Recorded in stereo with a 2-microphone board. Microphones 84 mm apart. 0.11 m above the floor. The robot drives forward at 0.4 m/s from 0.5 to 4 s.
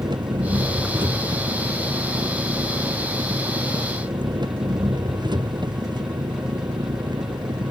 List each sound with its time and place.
0.0 s an engine running: 65° right (ahead or behind); by 7.7 s 60° right (ahead or behind)